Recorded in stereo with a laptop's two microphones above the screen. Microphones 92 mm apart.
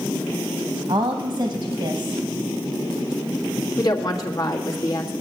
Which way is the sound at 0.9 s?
60° right (ahead or behind).